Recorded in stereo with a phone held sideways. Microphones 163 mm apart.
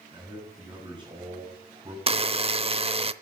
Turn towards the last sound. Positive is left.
turn(degrees=-35)  # may be behind; listen again after turning